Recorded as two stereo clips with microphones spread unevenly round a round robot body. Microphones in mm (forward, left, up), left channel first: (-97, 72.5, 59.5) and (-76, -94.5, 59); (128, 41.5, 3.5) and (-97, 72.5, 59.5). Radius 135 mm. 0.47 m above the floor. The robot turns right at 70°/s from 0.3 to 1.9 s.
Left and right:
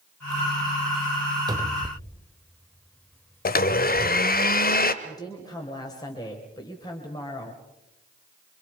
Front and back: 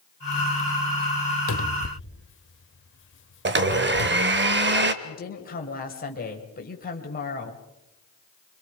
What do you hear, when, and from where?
1.5 s a cupboard door: 10° right, 0.9 m; by 4.5 s 15° left, 0.9 m
3.5 s a blender: 130° left, 1.2 m
5.0 s a woman speaking: 30° left, 2.5 m